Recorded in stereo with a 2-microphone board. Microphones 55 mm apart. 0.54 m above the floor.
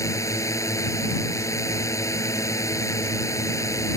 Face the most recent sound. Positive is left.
turn(degrees=75)  # may be behind; listen again after turning